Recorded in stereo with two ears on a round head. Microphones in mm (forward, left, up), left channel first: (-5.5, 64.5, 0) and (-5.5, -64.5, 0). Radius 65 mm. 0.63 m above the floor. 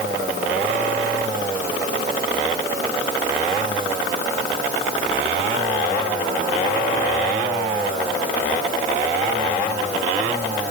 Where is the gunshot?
I don't hear a gunshot.